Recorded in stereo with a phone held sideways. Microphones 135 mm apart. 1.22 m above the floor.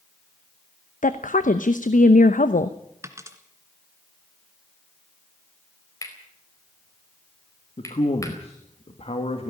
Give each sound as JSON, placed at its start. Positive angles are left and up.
{"t": 1.0, "sound": "a woman speaking", "side_deg": 75, "distance_m": 0.9}
{"t": 3.0, "sound": "a dropped coin", "side_deg": -20, "distance_m": 1.9}
{"t": 6.0, "sound": "cutlery clinking", "side_deg": 25, "distance_m": 4.0}
{"t": 7.8, "sound": "a man speaking", "side_deg": 50, "distance_m": 2.0}